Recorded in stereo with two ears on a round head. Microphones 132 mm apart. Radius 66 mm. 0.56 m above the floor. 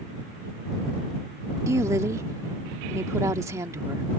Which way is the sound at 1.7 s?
20° right (ahead or behind).